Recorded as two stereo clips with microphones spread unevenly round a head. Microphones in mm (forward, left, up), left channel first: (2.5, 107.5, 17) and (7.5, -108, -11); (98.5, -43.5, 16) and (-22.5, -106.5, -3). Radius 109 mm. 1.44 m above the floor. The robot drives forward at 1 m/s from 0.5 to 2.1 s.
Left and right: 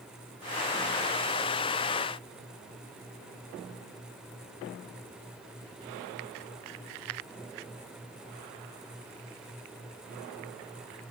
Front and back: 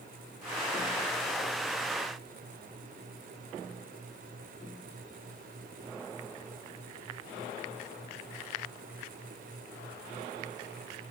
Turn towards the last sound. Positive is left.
No sound to turn to.